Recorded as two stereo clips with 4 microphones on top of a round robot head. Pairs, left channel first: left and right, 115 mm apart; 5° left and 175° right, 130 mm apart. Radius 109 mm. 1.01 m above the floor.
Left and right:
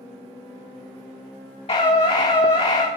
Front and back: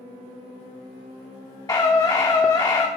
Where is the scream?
65° left, 1.3 m.